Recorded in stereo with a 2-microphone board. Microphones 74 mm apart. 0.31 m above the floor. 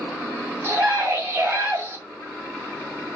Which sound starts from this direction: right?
A scream, at 0.6 s.